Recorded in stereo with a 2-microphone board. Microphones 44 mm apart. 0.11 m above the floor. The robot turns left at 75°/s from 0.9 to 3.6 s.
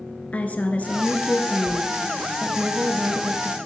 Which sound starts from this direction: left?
A woman speaking, at 0.3 s.